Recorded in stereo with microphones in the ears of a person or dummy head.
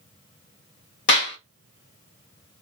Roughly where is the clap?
Left.